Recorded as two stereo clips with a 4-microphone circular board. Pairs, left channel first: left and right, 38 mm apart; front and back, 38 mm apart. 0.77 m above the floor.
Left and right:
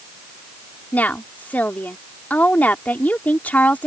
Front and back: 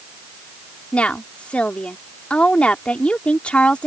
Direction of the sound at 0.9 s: 50° left.